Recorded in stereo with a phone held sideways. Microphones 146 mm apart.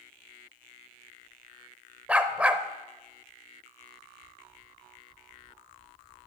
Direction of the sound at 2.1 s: 10° right (ahead or behind).